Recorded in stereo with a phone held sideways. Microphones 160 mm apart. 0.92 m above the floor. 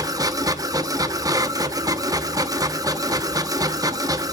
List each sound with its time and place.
0.0 s a machine running: 20° right (ahead or behind), 0.9 m